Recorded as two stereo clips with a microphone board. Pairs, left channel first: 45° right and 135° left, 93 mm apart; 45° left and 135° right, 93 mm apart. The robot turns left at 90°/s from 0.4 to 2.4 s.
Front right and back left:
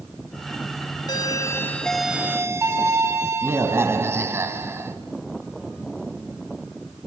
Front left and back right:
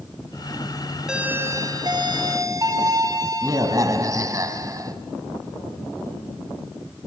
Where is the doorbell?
55° right, 2.5 m; by 5.0 s 170° right, 2.5 m.